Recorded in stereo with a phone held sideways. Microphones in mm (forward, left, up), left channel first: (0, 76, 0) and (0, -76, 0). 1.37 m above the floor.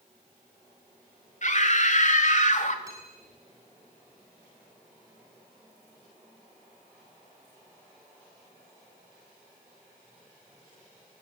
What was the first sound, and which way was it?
A scream, 55° left (ahead or behind).